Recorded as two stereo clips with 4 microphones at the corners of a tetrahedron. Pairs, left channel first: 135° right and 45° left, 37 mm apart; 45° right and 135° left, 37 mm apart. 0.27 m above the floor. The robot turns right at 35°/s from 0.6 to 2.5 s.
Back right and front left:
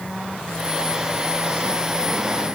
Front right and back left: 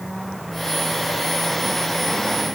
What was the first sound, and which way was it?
Only background noise.